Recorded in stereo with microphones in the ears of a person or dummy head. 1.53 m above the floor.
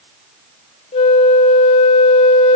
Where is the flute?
30° left (ahead or behind), 0.6 m.